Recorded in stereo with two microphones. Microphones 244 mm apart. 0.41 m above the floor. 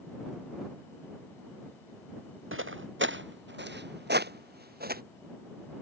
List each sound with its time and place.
2.5 s footsteps: 55° right (ahead or behind); by 5.0 s 40° right (ahead or behind)